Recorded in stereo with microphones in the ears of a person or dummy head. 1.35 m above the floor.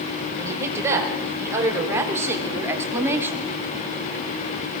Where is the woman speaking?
15° right (ahead or behind), 6 m; by 3.5 s 10° right (ahead or behind), 2.5 m.